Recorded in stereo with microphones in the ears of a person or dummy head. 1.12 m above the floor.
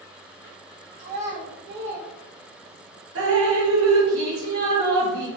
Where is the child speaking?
75° right (ahead or behind), 1.7 m; by 2.9 s 40° right (ahead or behind), 1.1 m.